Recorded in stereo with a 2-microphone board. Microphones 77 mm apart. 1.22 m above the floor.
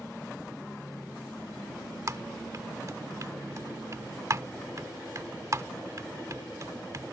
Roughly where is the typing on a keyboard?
Right.